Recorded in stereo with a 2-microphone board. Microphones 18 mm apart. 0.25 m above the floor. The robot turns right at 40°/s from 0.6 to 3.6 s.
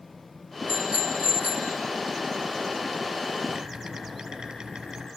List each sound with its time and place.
0.7 s a bicycle bell: 120° right, 2 m; by 1.8 s 75° right, 2 m
3.5 s typing on a keyboard: 45° right (ahead or behind), 6 m; by 5.1 s 40° right (ahead or behind), 6 m